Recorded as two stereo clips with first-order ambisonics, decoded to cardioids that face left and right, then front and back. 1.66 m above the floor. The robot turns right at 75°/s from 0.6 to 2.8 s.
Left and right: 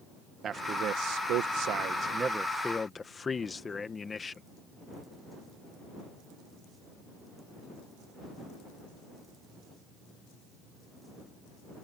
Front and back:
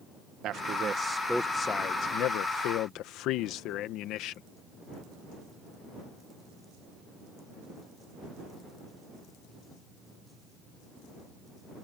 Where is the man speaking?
145° right; by 4.4 s 20° left.